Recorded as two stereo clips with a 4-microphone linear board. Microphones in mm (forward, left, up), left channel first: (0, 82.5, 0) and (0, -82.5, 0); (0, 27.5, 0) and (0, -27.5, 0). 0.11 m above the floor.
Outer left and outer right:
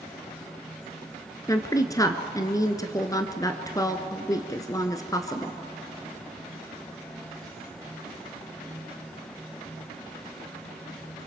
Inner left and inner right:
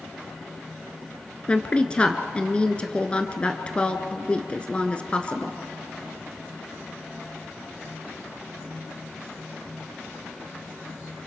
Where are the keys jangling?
I don't hear keys jangling.